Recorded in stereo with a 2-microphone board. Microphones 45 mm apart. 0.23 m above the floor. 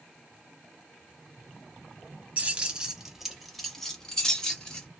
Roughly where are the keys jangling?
Right.